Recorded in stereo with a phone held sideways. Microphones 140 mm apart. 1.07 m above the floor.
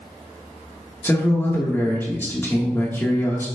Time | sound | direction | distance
1.0 | a man speaking | 15° left (ahead or behind) | 1.4 m